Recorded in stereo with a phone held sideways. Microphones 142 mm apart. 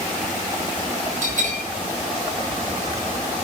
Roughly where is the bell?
Right.